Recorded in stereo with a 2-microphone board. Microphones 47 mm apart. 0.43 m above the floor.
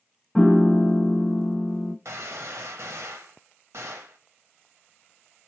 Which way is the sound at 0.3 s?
5° left (ahead or behind).